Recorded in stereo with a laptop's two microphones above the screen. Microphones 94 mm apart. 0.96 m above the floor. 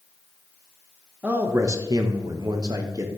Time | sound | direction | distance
1.2 | a man speaking | 15° right (ahead or behind) | 0.7 m